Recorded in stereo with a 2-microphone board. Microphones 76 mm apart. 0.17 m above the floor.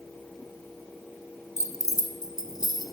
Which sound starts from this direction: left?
Keys jangling, at 1.6 s.